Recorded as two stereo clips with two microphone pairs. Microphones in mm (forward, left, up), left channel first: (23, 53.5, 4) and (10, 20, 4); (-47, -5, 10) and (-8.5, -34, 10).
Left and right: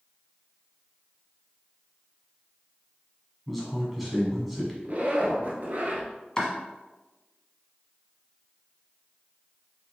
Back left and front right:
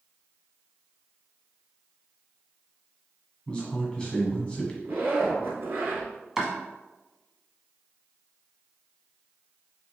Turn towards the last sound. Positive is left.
turn(degrees=30)